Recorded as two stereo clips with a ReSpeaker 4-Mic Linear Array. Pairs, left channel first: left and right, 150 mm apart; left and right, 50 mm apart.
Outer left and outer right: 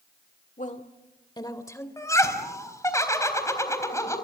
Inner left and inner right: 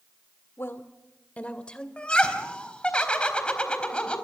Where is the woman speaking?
55° left (ahead or behind), 1.6 m; by 1.9 s 15° left (ahead or behind), 2.5 m.